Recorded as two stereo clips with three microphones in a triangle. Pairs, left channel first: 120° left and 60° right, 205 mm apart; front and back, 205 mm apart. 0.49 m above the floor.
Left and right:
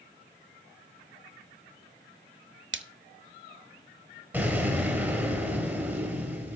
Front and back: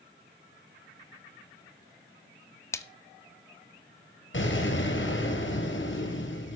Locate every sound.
2.7 s a splash: 75° right, 0.9 m
4.3 s an explosion: 20° left, 4 m